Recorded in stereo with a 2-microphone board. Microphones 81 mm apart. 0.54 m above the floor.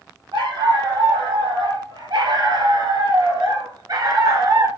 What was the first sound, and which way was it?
A dog barking, 70° right (ahead or behind).